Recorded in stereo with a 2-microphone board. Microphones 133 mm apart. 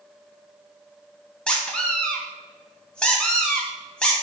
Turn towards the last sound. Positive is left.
turn(degrees=5)  # may be behind; listen again after turning